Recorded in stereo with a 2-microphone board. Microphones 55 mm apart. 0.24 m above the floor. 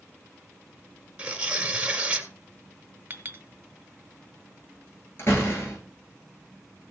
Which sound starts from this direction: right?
A clink, at 3.1 s.